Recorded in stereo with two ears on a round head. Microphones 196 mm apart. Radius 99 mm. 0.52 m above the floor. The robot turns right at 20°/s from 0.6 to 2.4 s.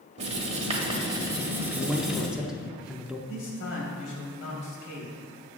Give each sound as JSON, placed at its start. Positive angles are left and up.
{"t": 0.2, "sound": "writing", "azimuth_deg": -30, "distance_m": 1.3}
{"t": 1.7, "sound": "a man speaking", "side_deg": -10, "distance_m": 0.7}
{"t": 3.3, "sound": "a man speaking", "side_deg": 55, "distance_m": 2.5}